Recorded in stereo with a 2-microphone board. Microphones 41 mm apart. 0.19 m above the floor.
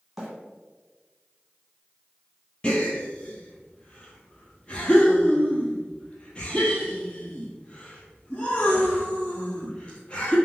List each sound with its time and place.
0.2 s a bird: 5° right (ahead or behind), 1.8 m
2.6 s a gasp: 25° left (ahead or behind), 1.2 m